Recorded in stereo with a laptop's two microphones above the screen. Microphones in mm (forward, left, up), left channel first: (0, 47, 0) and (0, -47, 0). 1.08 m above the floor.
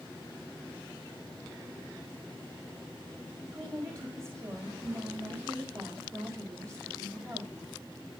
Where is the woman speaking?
35° right (ahead or behind), 5.5 m.